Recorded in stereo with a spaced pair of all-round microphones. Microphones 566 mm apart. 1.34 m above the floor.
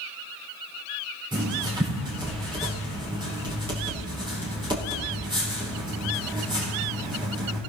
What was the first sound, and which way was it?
Writing, 10° right (ahead or behind).